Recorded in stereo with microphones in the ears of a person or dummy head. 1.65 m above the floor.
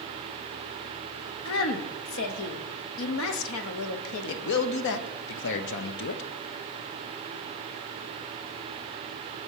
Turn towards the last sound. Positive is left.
turn(degrees=65)  # may be behind; listen again after turning